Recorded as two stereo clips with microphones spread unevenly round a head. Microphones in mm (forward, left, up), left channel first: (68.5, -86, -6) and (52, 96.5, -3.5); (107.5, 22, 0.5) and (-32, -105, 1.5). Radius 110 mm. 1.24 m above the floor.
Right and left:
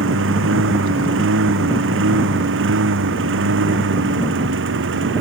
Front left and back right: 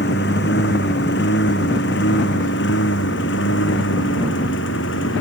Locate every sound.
0.0 s a lawn mower: 90° left; by 5.2 s 85° left